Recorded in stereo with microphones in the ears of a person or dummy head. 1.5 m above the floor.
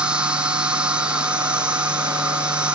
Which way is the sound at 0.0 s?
5° right (ahead or behind).